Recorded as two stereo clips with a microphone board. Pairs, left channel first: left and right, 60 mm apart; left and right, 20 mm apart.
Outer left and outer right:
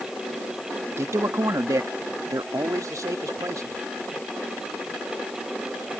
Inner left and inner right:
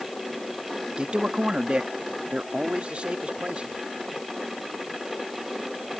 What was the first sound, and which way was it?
A man speaking, 50° right (ahead or behind).